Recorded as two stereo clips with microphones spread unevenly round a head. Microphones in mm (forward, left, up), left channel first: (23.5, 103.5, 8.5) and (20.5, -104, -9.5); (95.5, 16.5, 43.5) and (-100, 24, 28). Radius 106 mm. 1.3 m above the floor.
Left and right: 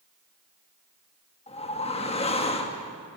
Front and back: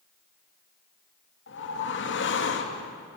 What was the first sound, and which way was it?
A whoosh, 25° left.